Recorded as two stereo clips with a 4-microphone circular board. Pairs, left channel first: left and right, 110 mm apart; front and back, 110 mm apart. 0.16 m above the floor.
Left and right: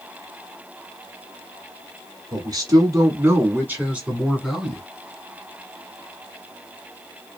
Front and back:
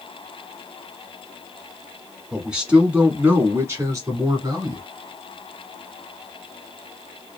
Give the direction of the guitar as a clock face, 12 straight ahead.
No guitar in this recording.